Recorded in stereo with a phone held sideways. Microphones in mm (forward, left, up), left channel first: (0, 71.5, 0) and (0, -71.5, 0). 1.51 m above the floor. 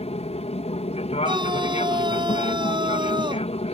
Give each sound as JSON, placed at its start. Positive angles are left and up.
{"t": 0.0, "sound": "an aircraft", "side_deg": 45}
{"t": 1.2, "sound": "a scream", "side_deg": -35}